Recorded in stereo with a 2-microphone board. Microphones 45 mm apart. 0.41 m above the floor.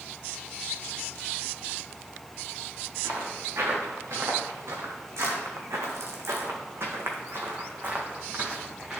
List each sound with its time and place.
3.0 s footsteps: 65° right (ahead or behind), 3 m; by 9.0 s 15° right (ahead or behind), 2 m